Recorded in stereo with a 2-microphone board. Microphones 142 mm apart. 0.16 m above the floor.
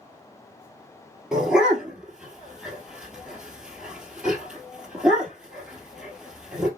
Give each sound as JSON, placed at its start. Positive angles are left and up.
{"t": 1.3, "sound": "a dog barking", "side_deg": -5, "distance_m": 1.6}